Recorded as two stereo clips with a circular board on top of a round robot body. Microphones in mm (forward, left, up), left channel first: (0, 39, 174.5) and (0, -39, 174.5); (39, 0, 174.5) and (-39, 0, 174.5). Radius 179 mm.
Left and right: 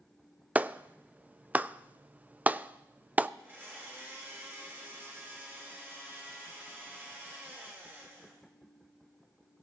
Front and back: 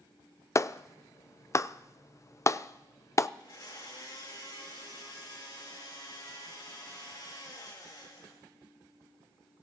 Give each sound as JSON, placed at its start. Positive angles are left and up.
{"t": 0.6, "sound": "a clap", "azimuth_deg": -30, "distance_m": 0.5}
{"t": 3.4, "sound": "a blender", "azimuth_deg": -30, "distance_m": 3.5}